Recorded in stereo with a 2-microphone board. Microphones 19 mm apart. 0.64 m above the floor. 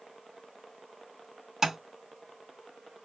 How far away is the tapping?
About 1.3 m.